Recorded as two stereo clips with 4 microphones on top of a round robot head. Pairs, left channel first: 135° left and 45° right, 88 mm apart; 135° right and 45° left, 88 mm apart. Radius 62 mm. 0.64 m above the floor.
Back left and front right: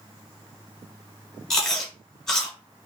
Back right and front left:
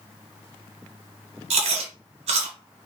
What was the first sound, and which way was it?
Chewing, 50° left.